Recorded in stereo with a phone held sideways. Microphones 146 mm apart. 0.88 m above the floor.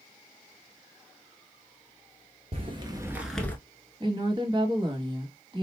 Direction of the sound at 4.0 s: 30° right (ahead or behind).